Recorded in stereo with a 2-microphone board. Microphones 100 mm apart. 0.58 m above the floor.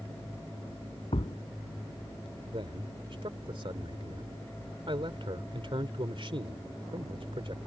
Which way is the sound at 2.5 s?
55° right (ahead or behind).